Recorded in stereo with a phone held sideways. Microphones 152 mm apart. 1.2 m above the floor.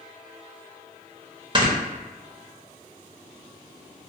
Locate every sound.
1.6 s snoring: 30° right (ahead or behind), 0.6 m